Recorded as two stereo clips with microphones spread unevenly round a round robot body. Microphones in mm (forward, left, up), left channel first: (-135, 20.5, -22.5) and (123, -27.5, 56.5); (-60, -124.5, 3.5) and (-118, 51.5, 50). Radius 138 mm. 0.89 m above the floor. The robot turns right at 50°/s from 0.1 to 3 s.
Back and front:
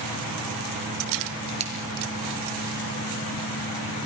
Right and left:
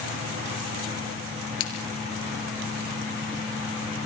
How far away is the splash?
About 5.5 m.